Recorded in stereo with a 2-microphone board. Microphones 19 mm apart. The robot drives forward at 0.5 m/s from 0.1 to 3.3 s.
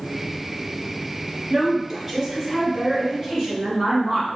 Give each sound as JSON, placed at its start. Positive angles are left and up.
{"t": 1.5, "sound": "a woman speaking", "side_deg": -20, "distance_m": 1.8}